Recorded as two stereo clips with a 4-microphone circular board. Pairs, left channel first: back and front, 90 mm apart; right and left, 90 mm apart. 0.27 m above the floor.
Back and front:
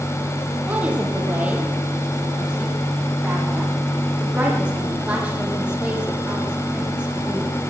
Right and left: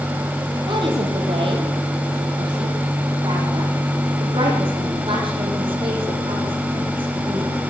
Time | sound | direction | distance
0.7 | a woman speaking | 75° left | 7.5 m